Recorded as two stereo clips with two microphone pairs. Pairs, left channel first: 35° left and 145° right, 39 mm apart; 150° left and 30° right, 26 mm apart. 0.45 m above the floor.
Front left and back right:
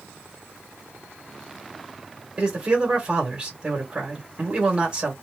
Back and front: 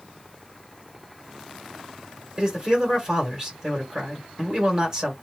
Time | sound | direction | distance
2.4 | a man speaking | 85° right | 2 m